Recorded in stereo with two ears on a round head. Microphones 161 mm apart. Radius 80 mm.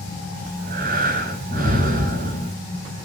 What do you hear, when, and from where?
0.5 s breathing: 55° right (ahead or behind), 4.5 m